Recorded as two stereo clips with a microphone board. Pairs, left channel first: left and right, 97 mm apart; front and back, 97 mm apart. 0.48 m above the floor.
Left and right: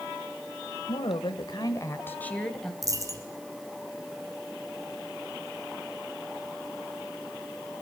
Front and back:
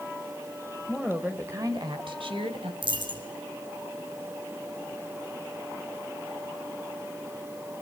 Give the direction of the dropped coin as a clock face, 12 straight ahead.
5 o'clock.